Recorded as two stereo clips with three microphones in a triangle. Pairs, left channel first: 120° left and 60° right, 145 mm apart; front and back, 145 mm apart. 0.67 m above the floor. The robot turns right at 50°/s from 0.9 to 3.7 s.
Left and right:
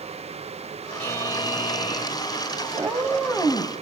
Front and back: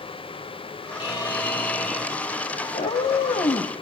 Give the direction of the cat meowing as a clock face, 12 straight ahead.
12 o'clock.